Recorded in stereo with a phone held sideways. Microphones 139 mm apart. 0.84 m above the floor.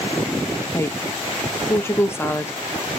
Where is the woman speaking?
20° left (ahead or behind), 0.6 m.